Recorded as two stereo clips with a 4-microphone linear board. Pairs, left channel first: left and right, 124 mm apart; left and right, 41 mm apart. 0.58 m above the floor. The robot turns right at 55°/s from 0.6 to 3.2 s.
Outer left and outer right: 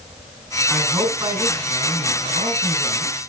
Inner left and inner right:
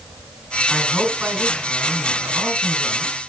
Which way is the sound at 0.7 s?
170° right.